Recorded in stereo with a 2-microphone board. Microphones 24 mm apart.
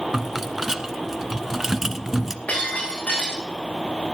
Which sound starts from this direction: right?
A rattle, at 0.1 s.